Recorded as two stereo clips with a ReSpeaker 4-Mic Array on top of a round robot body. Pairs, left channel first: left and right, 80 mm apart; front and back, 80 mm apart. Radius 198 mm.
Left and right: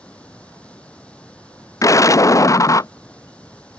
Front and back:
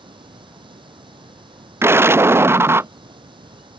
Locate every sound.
0.0 s running water: 165° left
1.8 s an explosion: 130° left